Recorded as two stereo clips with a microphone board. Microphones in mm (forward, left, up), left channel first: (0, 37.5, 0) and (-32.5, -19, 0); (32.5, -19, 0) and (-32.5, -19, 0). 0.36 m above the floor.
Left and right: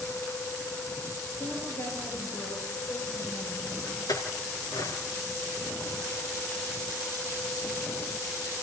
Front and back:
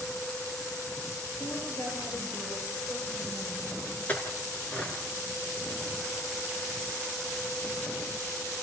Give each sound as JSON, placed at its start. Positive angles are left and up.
{"t": 1.4, "sound": "a woman speaking", "azimuth_deg": 25, "distance_m": 8.5}
{"t": 4.1, "sound": "a clink", "azimuth_deg": 65, "distance_m": 3.0}